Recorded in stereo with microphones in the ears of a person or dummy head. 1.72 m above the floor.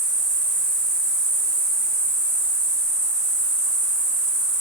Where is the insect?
45° left (ahead or behind), 1.5 m.